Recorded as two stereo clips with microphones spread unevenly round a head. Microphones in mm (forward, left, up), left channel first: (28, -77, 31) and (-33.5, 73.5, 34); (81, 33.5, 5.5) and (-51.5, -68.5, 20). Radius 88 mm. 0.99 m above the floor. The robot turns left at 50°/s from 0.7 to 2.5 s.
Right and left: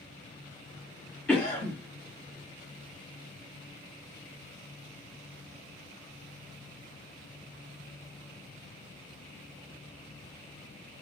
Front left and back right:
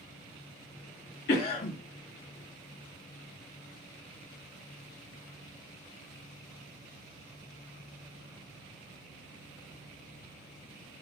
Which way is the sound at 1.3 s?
15° left.